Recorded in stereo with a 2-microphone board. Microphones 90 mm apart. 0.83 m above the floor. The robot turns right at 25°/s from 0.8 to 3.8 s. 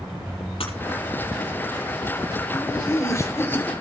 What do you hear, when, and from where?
0.6 s breaking glass: 80° left, 6 m
2.5 s laughter: 45° left (ahead or behind), 3.5 m; by 3.7 s 20° left (ahead or behind), 3.5 m